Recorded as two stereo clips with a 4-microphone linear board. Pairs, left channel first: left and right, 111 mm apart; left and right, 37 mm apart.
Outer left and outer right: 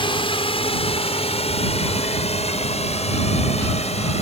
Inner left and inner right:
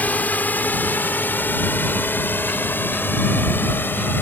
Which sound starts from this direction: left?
A drone, at 0.0 s.